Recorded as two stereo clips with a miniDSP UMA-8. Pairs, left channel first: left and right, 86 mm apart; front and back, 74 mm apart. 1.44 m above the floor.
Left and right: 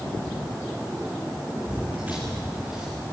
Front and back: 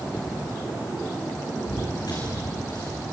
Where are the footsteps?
20° right, 7 m.